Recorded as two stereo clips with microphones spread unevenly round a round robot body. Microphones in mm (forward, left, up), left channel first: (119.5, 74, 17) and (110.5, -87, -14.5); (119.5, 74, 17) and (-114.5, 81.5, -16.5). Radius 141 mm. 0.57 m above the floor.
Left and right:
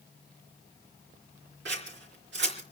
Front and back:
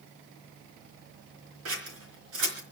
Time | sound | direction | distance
1.6 | scissors | 135° right | 3.5 m